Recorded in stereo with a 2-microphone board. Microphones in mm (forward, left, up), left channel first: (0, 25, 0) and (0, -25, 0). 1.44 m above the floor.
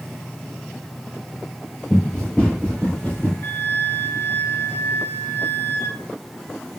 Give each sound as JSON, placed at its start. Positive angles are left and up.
{"t": 1.9, "sound": "running footsteps", "side_deg": 10, "distance_m": 1.5}
{"t": 3.4, "sound": "a flute", "side_deg": 45, "distance_m": 0.5}